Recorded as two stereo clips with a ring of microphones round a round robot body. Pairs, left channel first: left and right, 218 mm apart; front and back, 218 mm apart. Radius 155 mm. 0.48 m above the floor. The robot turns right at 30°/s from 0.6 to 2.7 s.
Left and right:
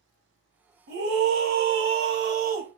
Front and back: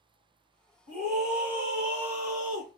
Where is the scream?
95° right, 1.9 m; by 2.7 s 40° right, 1.9 m.